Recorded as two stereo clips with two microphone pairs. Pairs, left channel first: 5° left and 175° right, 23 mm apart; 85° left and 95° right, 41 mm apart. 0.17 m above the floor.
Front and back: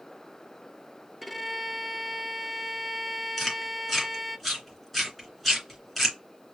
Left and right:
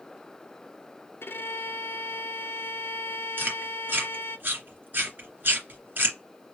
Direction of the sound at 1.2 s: 100° left.